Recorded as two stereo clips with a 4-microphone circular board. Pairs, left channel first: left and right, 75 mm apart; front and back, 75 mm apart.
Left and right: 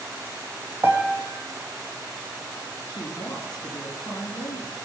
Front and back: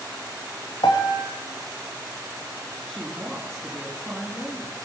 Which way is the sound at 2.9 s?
85° left.